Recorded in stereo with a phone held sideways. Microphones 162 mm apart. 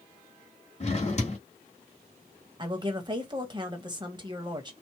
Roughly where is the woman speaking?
Right.